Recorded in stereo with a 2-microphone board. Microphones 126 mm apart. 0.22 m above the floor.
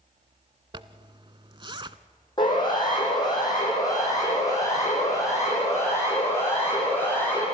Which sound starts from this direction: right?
A zipper, at 0.7 s.